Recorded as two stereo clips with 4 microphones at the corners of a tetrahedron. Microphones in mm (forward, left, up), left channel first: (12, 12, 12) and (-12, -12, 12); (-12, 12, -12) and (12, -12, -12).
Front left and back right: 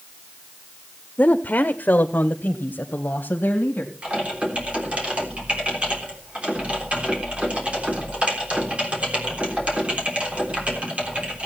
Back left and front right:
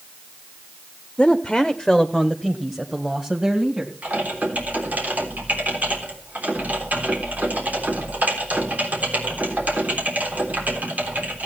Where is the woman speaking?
70° left, 0.7 m; by 3.9 s 25° left, 2 m.